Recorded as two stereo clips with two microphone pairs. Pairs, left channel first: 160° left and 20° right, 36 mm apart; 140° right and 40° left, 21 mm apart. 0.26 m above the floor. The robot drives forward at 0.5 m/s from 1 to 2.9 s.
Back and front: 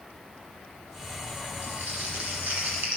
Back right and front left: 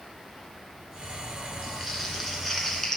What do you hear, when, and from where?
1.6 s crumpling: 50° right, 2.5 m; by 3.0 s 65° right, 2 m